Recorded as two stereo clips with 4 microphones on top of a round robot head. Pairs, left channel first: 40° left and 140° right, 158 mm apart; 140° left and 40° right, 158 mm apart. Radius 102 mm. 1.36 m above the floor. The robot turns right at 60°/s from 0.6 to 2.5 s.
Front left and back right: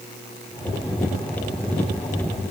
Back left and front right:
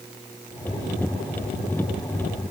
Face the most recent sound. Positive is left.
No sound to turn to.